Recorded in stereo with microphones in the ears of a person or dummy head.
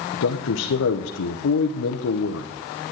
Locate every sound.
0.1 s a man speaking: 85° left, 0.9 m